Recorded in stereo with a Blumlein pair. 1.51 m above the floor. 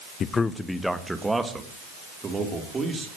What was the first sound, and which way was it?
A man speaking, 25° left.